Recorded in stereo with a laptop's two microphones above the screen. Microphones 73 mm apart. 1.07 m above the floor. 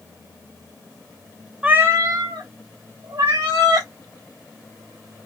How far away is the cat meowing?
About 0.5 m.